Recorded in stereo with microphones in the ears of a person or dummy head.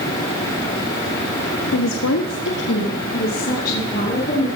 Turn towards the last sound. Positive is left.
turn(degrees=45)  # may be behind; listen again after turning